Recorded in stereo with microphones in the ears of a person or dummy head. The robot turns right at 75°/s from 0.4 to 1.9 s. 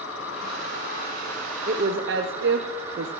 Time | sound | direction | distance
0.0 | an insect | 85° left | 10 m
1.7 | a woman speaking | 40° right (ahead or behind) | 0.8 m